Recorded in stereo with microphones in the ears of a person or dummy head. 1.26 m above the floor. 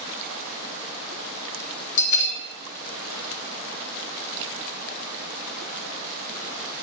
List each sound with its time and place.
2.0 s a bell: 60° left (ahead or behind), 0.5 m